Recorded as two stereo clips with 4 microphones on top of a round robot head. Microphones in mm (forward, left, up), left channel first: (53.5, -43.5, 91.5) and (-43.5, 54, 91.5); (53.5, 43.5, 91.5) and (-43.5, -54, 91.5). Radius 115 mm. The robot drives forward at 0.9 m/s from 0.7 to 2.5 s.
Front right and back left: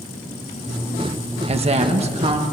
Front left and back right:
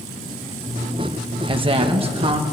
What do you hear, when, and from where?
1.5 s a woman speaking: 175° left, 1.1 m; by 2.4 s straight behind, 1.9 m